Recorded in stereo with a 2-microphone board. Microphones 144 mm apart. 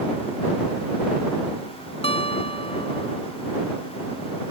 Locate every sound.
2.0 s a guitar: 40° left (ahead or behind)